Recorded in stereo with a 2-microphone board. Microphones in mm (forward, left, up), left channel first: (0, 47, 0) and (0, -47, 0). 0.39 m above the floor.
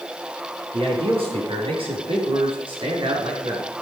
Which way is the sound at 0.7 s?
80° right.